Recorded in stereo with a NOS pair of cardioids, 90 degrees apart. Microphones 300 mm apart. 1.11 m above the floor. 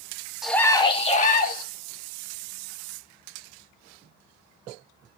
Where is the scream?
Straight ahead, 1.0 m; by 1.6 s 30° left, 2 m.